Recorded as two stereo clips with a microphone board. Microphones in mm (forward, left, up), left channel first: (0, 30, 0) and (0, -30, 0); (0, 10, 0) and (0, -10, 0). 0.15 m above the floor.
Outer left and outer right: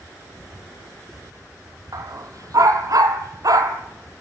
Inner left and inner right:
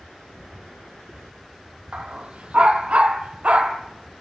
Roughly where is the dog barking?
Right.